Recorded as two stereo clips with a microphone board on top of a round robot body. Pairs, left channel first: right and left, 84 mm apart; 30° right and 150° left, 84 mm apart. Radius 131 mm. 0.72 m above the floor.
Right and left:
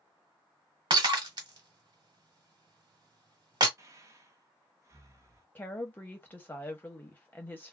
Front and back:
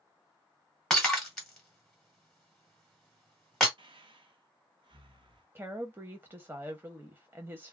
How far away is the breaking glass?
About 1.2 m.